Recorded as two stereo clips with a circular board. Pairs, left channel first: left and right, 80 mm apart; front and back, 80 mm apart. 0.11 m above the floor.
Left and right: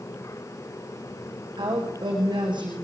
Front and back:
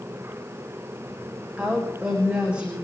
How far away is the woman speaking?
About 8 m.